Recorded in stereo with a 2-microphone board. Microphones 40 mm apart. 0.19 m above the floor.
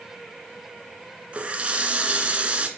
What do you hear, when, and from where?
1.3 s a running tap: 30° right (ahead or behind), 1.3 m